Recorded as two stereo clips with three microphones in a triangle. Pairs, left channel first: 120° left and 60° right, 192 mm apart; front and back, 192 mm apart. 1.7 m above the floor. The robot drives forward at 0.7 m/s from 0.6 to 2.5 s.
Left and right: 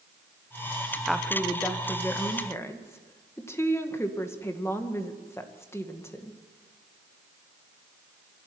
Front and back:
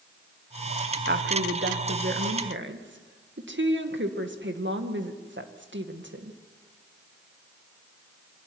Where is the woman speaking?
150° right, 1.2 m; by 6.4 s 165° right, 2 m.